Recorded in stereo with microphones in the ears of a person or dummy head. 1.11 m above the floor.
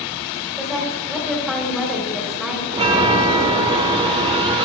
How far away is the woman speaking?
About 3 m.